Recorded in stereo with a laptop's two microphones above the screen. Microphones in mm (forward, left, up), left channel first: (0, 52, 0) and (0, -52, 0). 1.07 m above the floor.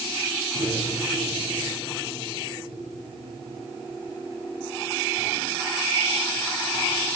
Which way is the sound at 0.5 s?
75° right (ahead or behind).